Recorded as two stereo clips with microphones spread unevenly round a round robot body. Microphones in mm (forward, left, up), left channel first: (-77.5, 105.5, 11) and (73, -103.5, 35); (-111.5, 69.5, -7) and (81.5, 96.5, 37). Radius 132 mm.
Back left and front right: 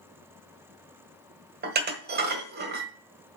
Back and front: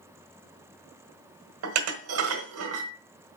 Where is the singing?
I don't hear singing.